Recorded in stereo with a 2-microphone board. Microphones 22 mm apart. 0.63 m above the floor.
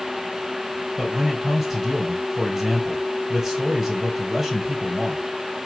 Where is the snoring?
No snoring in this recording.